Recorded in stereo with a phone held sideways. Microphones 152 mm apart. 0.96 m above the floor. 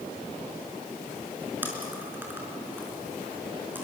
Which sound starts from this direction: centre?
Chewing, at 1.6 s.